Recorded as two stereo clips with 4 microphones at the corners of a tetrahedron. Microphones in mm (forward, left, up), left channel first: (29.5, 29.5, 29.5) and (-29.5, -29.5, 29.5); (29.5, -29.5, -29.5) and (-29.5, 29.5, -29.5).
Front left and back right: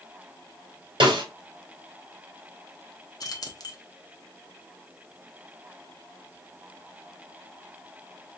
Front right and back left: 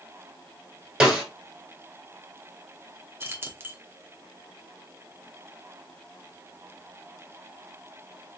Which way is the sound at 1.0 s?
145° right.